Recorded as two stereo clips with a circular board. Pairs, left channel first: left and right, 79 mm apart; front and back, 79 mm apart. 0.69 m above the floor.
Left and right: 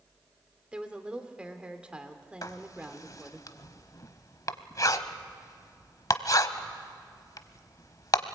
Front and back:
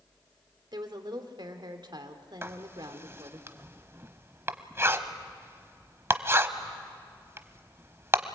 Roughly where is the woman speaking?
Behind.